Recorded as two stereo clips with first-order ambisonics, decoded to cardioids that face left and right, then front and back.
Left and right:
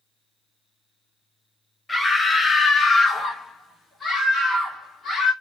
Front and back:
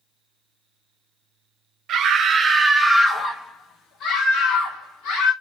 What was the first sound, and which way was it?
A scream, 170° left.